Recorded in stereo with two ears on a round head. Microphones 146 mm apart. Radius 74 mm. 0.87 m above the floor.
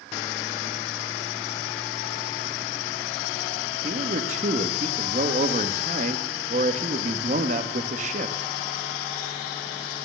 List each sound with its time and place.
3.8 s a man speaking: 45° right (ahead or behind), 1.5 m